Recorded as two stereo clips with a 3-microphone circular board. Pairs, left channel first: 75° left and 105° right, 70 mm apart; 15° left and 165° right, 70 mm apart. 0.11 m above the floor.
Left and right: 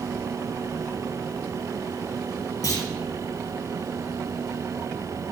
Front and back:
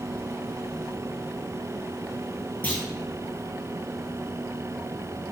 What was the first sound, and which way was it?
A clunk, 75° left.